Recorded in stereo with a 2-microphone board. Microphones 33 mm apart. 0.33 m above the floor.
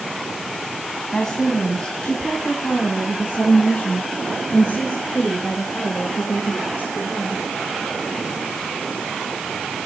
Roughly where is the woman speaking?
Centre.